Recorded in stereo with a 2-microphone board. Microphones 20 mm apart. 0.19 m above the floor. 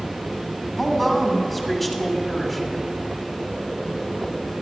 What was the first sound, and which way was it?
A woman speaking, 5° left (ahead or behind).